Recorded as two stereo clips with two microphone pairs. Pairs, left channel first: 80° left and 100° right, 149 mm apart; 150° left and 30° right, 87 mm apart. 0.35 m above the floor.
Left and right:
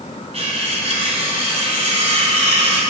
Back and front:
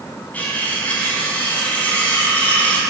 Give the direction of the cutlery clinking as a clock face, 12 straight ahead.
5 o'clock.